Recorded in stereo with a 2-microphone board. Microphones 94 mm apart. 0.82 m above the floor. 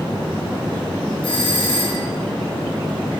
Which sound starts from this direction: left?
A doorbell, at 1.2 s.